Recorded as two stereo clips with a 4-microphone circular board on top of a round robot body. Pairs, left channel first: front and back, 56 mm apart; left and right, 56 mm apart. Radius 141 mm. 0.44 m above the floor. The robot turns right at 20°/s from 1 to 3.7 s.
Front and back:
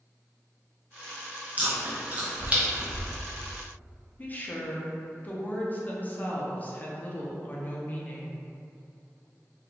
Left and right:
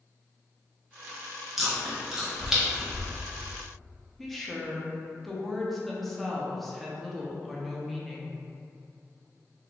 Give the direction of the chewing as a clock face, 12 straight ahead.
6 o'clock.